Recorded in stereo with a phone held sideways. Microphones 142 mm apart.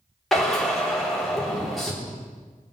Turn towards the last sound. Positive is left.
turn(degrees=0)  # may be behind; listen again after turning